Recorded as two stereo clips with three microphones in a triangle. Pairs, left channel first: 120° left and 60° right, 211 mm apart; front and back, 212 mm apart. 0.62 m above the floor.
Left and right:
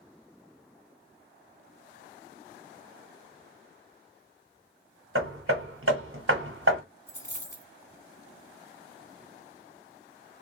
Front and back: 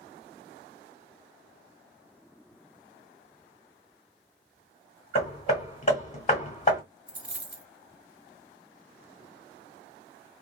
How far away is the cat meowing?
No cat meowing in this recording.